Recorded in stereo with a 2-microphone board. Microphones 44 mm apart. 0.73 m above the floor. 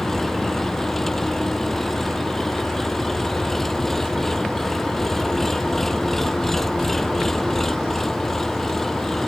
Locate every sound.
0.0 s an engine running: 5° left (ahead or behind)